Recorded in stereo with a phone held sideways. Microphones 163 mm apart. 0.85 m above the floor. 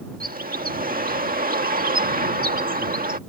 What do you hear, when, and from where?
0.2 s a bird: 65° right (ahead or behind)